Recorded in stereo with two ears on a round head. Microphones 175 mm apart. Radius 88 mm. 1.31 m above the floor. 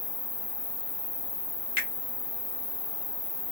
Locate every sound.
0.0 s an insect: 40° left (ahead or behind), 1.9 m
1.8 s a finger snap: 70° left (ahead or behind), 1.2 m